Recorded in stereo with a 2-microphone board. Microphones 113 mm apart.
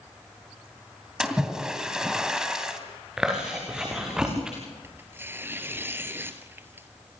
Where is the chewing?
5° right (ahead or behind), 6 m.